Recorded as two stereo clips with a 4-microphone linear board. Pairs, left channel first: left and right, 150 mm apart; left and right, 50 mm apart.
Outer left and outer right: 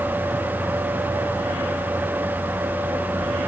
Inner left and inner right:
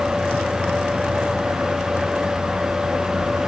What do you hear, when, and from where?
Only background noise.